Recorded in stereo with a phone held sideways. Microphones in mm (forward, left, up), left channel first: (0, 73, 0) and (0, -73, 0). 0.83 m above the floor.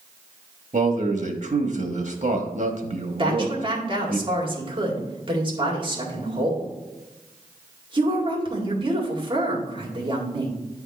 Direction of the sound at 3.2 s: 35° right (ahead or behind).